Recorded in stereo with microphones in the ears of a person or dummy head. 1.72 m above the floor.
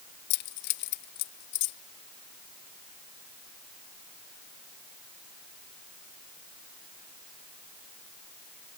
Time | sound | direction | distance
0.3 | keys jangling | 55° left (ahead or behind) | ?